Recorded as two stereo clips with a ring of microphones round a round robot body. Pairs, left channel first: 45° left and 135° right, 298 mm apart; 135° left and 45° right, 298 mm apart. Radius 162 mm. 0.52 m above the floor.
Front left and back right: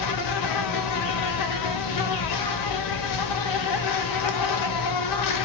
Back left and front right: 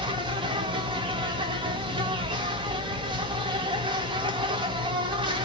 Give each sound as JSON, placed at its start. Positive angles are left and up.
{"t": 0.0, "sound": "an insect", "azimuth_deg": 30, "distance_m": 0.8}